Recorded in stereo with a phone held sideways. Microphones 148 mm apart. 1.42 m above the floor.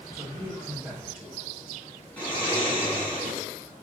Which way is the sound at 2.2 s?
10° left (ahead or behind).